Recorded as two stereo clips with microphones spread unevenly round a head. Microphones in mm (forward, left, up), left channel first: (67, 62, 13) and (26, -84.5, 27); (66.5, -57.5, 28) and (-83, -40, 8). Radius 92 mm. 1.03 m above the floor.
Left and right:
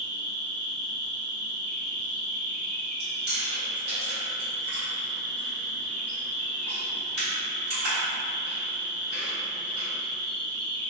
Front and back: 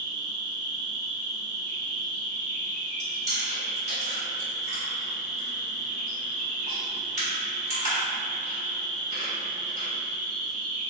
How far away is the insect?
About 0.9 m.